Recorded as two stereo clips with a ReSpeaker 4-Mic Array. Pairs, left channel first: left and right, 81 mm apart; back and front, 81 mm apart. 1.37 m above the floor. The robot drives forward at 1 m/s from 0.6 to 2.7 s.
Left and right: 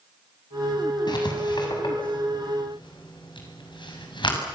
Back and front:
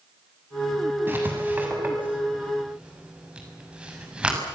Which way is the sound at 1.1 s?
65° left.